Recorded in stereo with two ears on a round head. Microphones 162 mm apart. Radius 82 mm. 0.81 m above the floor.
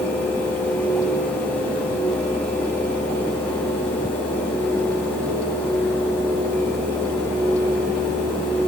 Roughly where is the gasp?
No gasp in this recording.